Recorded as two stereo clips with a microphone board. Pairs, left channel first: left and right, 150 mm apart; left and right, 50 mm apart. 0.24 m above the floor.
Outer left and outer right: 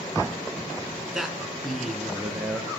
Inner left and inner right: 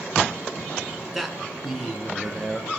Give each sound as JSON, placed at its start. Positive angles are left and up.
{"t": 1.1, "sound": "a man speaking", "side_deg": -5, "distance_m": 3.0}